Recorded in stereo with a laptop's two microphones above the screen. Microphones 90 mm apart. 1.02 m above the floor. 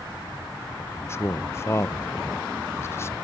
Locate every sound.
0.8 s a man speaking: 30° left (ahead or behind), 0.5 m